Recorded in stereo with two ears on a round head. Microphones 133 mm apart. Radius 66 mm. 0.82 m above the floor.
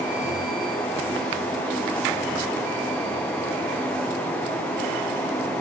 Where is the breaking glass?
I don't hear breaking glass.